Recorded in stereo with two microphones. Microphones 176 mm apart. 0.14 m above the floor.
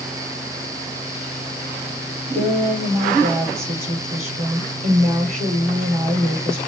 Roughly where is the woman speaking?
Right.